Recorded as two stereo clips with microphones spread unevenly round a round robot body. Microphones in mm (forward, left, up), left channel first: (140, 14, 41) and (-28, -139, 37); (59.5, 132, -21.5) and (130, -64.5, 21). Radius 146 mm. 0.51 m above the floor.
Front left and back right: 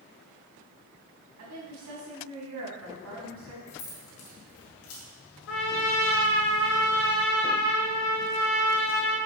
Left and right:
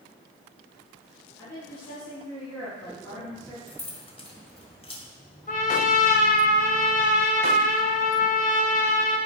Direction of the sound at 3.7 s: 50° left.